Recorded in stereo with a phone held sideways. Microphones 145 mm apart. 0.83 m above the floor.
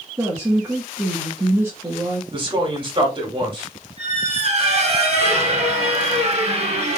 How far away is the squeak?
About 2 m.